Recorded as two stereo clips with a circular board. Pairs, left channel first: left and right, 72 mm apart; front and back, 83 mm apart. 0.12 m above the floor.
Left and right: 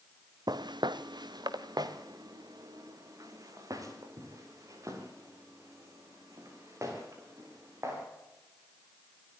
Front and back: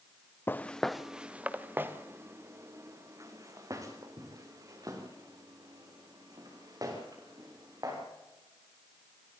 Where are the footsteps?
65° right, 1.0 m; by 8.0 s 135° right, 9 m.